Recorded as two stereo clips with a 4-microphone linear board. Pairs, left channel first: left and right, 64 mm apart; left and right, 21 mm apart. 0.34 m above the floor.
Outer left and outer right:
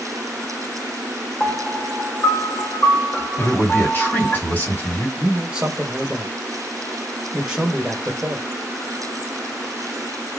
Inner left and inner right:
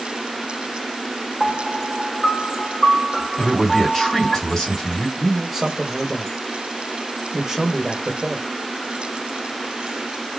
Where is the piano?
30° left (ahead or behind), 0.7 m.